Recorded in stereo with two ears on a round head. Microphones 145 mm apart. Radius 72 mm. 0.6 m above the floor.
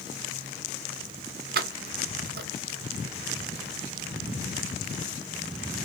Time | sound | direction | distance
1.6 | keys jangling | 60° right (ahead or behind) | 1.4 m